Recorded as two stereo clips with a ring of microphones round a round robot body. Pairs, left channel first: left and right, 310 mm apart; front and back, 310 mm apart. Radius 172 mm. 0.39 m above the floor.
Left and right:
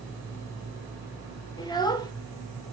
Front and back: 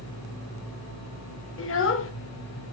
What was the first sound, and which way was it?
A child speaking, 20° left.